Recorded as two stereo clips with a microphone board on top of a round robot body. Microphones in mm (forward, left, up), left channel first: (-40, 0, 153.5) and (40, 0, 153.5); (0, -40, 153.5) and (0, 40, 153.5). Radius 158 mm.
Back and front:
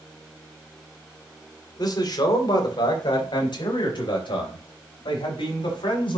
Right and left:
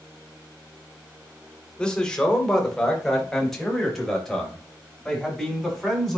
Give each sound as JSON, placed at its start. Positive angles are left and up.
{"t": 1.8, "sound": "a man speaking", "azimuth_deg": -165, "distance_m": 2.5}